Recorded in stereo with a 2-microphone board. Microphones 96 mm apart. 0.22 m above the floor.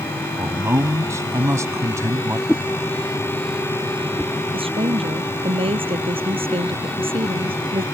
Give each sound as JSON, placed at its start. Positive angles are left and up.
{"t": 0.4, "sound": "a man speaking", "side_deg": -30}
{"t": 2.5, "sound": "a whoosh", "side_deg": 15}
{"t": 4.5, "sound": "a woman speaking", "side_deg": -75}